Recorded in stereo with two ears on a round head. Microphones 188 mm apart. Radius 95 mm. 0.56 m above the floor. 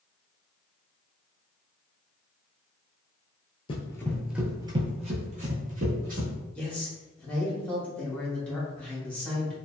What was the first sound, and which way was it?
Running footsteps, 25° left (ahead or behind).